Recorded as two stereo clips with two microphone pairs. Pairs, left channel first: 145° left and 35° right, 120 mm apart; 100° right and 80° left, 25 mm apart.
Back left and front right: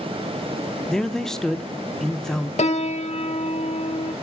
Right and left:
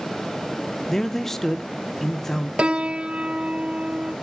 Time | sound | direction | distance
0.9 | a man speaking | 125° right | 0.7 m
2.6 | a piano | 130° left | 0.6 m